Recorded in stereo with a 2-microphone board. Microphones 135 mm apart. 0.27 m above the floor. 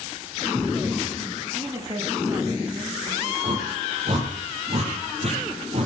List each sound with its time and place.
1.5 s a woman speaking: 35° right (ahead or behind), 2.5 m
3.4 s a whoosh: 50° right (ahead or behind), 9 m